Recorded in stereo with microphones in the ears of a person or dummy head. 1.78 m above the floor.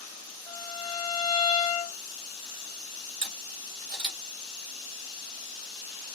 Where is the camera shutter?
50° right (ahead or behind), 1.6 m.